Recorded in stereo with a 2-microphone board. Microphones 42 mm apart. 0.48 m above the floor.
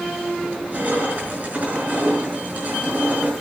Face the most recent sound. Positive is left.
turn(degrees=-35)  # may be behind; listen again after turning